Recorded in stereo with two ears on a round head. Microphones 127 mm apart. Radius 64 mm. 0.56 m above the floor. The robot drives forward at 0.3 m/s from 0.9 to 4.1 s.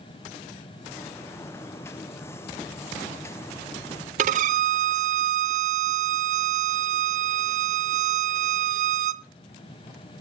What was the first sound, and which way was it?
A violin, 60° right (ahead or behind).